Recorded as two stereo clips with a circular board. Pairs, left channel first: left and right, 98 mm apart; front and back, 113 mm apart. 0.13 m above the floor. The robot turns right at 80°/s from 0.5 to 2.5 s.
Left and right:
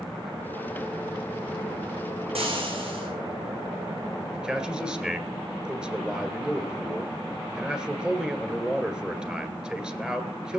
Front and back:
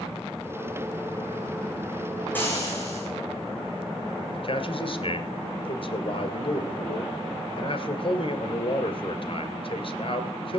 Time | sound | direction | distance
2.4 | frying | 75° right | 4 m
4.3 | a man speaking | 10° right | 1.8 m